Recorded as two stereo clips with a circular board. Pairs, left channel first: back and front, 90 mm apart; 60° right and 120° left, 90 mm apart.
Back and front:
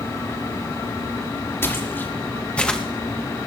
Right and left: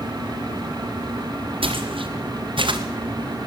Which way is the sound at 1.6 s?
115° left.